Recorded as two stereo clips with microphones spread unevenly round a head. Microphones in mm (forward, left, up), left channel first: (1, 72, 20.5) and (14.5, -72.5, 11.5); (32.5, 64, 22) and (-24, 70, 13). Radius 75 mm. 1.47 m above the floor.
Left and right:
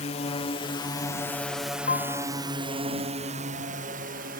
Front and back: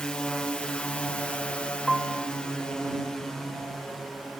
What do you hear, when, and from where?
0.0 s a drone: 70° left; by 4.4 s 95° right
1.9 s a piano: 80° left